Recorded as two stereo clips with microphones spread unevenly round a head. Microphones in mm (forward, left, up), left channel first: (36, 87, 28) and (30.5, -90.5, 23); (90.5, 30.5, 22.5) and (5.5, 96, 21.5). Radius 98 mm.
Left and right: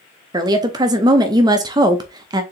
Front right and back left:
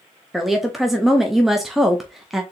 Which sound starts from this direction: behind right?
A woman speaking, at 0.3 s.